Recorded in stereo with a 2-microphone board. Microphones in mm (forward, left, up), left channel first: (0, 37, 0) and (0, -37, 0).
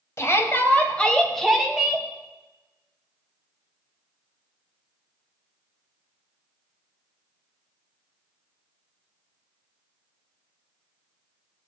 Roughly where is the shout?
Left.